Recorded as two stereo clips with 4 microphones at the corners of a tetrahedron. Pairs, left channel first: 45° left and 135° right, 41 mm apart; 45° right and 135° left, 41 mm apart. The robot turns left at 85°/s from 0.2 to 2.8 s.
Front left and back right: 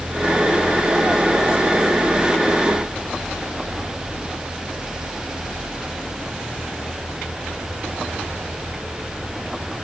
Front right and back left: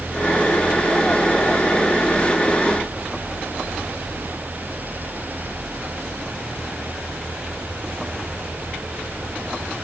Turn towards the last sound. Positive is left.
No sound to turn to.